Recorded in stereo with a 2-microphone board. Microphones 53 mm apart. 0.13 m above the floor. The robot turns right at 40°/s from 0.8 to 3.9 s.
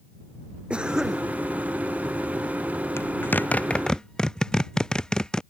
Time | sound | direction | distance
0.7 | a cough | 20° right (ahead or behind) | ?
3.0 | a zipper | 55° left (ahead or behind) | ?